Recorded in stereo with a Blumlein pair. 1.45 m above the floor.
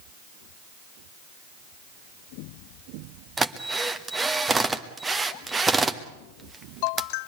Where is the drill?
10° right, 1.4 m.